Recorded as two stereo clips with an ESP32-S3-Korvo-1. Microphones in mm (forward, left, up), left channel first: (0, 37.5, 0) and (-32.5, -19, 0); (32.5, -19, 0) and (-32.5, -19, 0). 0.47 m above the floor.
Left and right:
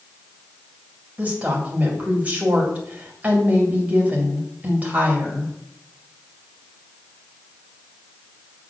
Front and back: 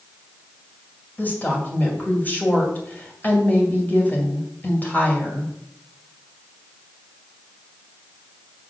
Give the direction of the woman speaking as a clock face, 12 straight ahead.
2 o'clock.